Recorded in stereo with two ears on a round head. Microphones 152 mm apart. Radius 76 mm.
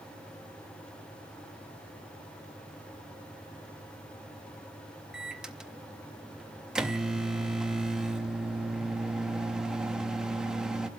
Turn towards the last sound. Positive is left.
turn(degrees=-5)  # may be behind; listen again after turning